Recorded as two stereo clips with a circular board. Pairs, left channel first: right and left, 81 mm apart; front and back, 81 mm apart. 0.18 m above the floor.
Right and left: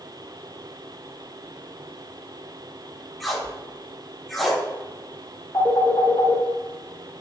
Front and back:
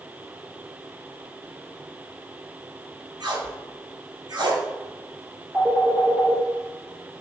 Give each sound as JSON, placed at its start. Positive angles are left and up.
{"t": 3.2, "sound": "tape being pulled", "azimuth_deg": 180, "distance_m": 1.5}
{"t": 5.5, "sound": "a phone ringing", "azimuth_deg": -130, "distance_m": 2.0}